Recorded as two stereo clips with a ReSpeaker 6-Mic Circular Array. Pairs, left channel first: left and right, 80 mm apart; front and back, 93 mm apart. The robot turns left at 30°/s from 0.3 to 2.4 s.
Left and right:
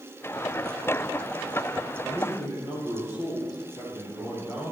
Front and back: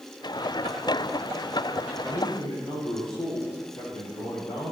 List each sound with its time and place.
2.0 s a man speaking: 70° left, 5.5 m; by 4.7 s 60° left, 5.5 m